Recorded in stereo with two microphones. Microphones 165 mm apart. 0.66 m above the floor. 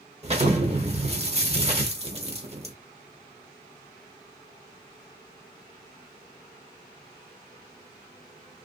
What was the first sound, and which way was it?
An explosion, 40° right (ahead or behind).